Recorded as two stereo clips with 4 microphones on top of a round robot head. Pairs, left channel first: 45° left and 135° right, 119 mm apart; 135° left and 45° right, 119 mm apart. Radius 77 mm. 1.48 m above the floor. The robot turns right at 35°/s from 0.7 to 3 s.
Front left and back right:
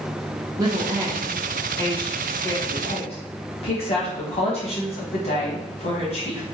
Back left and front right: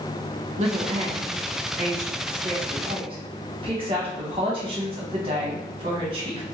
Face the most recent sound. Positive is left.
turn(degrees=5)